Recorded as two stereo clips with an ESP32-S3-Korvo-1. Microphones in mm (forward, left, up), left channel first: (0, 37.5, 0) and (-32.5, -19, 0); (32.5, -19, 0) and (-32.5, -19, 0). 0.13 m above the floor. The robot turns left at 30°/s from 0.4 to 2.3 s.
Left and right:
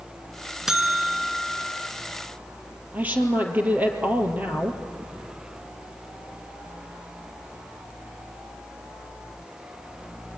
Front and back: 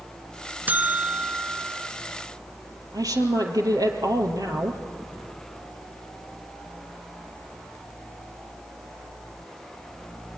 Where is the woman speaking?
175° left, 3 m.